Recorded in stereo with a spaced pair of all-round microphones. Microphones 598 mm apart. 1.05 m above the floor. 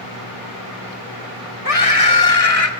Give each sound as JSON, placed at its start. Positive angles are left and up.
{"t": 1.6, "sound": "a scream", "side_deg": 80, "distance_m": 3.0}